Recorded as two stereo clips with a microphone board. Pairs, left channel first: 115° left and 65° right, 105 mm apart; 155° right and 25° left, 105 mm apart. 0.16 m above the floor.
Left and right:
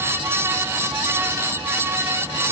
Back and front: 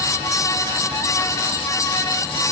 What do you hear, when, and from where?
Only background noise.